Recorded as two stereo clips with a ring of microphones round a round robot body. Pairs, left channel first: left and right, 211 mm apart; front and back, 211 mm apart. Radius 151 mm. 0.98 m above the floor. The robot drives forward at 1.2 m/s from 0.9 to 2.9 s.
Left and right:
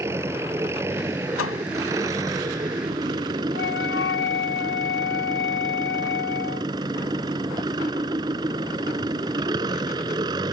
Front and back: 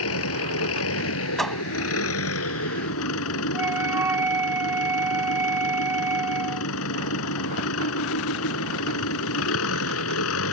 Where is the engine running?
10° right; by 10.5 s 15° right.